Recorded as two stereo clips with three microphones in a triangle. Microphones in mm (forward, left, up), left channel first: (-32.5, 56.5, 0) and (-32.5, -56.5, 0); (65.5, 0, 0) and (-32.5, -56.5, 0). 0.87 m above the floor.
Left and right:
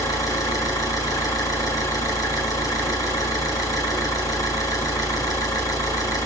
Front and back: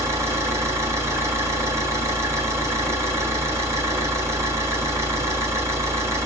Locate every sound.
0.0 s an engine running: 145° left, 6.5 m